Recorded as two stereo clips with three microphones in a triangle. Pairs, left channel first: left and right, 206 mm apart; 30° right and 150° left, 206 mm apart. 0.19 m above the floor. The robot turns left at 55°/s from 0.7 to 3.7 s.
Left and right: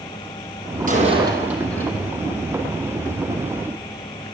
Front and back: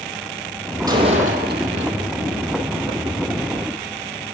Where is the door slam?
135° right, 5 m; by 2.1 s 155° left, 5 m.